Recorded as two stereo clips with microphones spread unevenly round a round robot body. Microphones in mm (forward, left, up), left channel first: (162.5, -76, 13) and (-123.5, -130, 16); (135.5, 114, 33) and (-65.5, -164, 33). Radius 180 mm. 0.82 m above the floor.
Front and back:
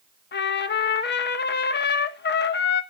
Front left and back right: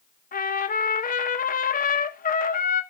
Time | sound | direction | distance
0.3 | a trumpet | 5° left | 1.0 m